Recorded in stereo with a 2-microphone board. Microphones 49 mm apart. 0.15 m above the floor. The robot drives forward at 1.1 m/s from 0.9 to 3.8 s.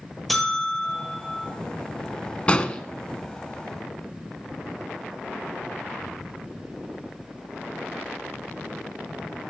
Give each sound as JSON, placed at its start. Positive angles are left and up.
{"t": 0.3, "sound": "a buzzer", "side_deg": 5, "distance_m": 2.0}
{"t": 2.5, "sound": "an explosion", "side_deg": 25, "distance_m": 0.7}